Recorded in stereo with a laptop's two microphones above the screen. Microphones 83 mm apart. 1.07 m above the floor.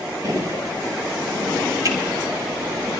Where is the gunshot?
50° right (ahead or behind), 9.5 m.